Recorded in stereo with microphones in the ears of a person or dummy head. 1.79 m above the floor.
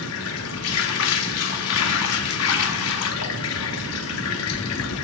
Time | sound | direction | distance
0.0 | running water | 65° left (ahead or behind) | 0.8 m